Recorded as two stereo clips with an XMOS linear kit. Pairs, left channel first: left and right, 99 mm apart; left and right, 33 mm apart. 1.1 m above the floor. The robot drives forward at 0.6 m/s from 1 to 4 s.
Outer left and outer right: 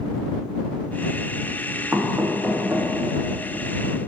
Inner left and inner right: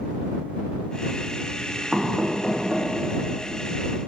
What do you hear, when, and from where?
1.9 s knocking: 25° right (ahead or behind), 1.1 m; by 2.9 s 15° right (ahead or behind), 1.7 m